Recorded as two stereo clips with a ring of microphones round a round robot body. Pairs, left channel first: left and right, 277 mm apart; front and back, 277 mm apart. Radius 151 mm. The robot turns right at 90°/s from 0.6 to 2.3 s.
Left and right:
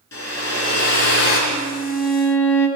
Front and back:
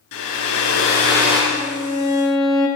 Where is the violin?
15° left, 1.7 m; by 2.7 s 90° left, 1.7 m.